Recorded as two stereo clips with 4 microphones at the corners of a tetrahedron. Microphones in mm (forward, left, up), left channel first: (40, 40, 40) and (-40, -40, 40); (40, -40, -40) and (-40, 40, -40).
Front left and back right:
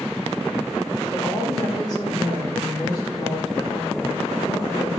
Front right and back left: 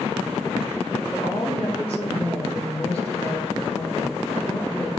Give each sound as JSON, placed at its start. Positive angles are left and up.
{"t": 1.1, "sound": "a woman speaking", "azimuth_deg": -10, "distance_m": 5.0}